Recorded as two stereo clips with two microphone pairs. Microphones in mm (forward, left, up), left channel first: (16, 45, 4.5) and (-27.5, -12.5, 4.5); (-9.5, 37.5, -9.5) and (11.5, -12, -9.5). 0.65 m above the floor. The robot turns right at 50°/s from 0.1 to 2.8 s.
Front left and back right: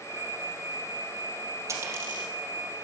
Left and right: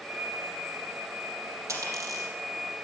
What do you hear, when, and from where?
1.7 s a dropped coin: 80° right, 3.5 m; by 2.3 s 50° right, 3.5 m